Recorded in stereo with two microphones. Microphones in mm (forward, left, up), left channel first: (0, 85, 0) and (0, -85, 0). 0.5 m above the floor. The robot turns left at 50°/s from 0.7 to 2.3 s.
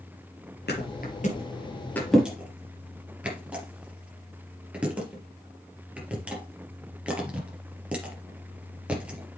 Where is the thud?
75° left (ahead or behind), 3.5 m; by 9.4 s 5° right (ahead or behind), 3.5 m.